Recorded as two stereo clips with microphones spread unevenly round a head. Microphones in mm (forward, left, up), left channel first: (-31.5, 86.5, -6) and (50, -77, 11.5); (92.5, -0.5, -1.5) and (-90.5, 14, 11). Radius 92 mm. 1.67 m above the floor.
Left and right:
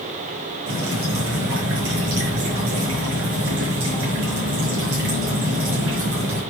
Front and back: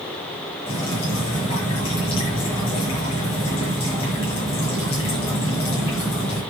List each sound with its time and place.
0.7 s dripping: 65° right, 6 m